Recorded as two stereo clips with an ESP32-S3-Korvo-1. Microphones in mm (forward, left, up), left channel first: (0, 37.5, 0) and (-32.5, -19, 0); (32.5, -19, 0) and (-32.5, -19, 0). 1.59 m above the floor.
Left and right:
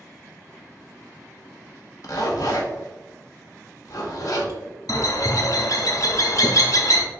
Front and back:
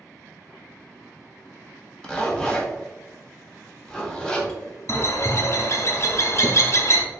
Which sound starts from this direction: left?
A zipper, at 2.0 s.